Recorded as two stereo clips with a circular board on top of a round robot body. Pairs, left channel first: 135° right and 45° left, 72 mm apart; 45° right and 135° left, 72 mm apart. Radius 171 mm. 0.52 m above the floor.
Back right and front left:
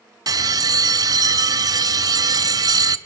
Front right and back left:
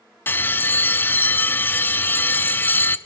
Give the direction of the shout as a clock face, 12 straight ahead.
I don't hear a shout.